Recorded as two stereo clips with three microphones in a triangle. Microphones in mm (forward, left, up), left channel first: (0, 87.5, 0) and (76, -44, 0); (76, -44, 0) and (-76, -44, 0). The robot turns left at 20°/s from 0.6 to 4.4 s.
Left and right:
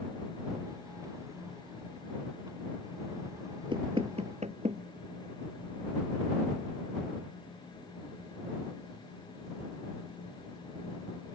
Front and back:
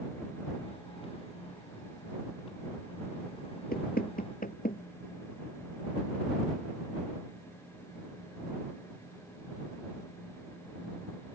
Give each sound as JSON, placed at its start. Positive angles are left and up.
{"t": 3.7, "sound": "knocking", "azimuth_deg": -5}